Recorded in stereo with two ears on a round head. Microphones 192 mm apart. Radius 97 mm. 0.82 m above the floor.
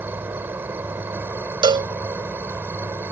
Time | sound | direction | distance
0.0 | an insect | 10° right (ahead or behind) | ?
1.6 | a cowbell | 25° right (ahead or behind) | ?